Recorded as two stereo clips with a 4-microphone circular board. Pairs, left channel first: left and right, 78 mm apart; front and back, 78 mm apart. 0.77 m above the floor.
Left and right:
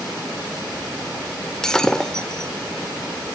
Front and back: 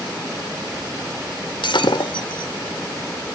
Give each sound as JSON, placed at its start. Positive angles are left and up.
{"t": 1.6, "sound": "breaking glass", "azimuth_deg": 10, "distance_m": 1.0}